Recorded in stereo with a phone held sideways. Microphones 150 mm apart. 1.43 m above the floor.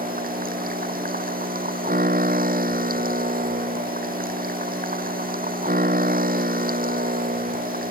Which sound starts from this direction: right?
A machine running, at 0.0 s.